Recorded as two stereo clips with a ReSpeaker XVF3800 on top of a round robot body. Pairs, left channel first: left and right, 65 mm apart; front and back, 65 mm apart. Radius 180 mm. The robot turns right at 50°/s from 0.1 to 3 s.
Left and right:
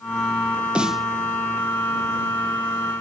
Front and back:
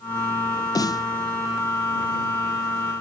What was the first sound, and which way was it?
A snare drum, 15° right.